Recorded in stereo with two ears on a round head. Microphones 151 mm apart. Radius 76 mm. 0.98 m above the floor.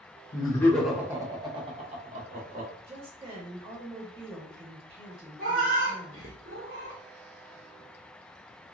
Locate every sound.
0.3 s laughter: 30° left (ahead or behind), 0.6 m; by 2.7 s 45° right (ahead or behind), 1.3 m
2.9 s a woman speaking: 30° right (ahead or behind), 0.9 m
5.4 s a cat meowing: 50° right (ahead or behind), 0.9 m